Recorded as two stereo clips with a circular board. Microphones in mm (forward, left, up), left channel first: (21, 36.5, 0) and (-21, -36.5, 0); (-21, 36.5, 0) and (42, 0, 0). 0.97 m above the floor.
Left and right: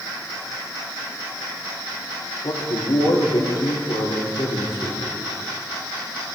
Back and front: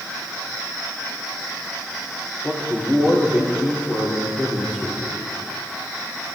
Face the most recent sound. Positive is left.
turn(degrees=80)